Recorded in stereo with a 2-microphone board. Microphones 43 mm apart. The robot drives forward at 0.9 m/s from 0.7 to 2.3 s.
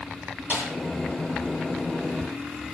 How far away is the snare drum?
About 9.5 m.